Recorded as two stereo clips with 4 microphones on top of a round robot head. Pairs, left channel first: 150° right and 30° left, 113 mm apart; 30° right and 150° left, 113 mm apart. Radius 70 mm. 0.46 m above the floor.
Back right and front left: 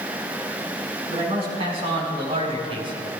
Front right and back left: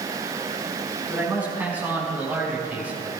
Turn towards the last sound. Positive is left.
turn(degrees=70)